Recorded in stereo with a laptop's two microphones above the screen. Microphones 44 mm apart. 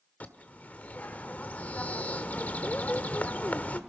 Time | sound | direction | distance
0.2 | a bird | 35° left (ahead or behind) | 1.3 m